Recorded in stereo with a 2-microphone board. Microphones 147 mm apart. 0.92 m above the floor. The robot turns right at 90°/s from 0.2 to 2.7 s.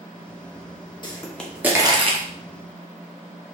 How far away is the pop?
About 0.8 m.